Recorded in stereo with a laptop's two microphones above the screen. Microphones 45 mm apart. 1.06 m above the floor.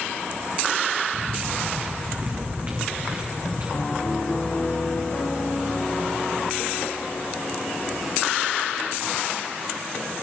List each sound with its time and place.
1.1 s footsteps: 20° right (ahead or behind), 2 m; by 3.6 s 45° right (ahead or behind), 4.5 m
3.7 s a piano: 45° left (ahead or behind), 1.8 m